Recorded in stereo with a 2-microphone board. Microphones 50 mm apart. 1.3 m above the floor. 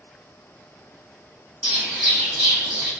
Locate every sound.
1.6 s a bird: 5° right (ahead or behind), 2.0 m